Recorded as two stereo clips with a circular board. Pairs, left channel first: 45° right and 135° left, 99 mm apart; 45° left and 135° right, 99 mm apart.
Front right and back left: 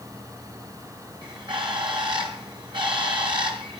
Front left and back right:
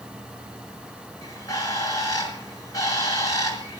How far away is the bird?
About 5.5 m.